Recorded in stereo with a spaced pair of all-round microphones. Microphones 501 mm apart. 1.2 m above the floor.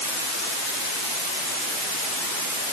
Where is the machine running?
No machine running in this recording.